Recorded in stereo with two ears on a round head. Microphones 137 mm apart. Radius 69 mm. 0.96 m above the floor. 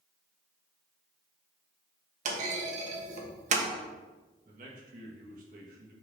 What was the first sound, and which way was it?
A clunk, 50° right (ahead or behind).